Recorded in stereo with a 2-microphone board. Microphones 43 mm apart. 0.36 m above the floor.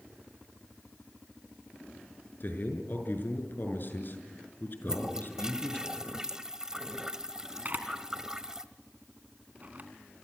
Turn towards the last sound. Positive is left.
turn(degrees=-40)  # may be behind; listen again after turning